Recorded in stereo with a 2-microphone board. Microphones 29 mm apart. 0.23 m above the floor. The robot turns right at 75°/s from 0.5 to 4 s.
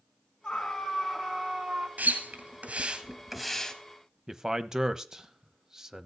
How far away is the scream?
About 2 m.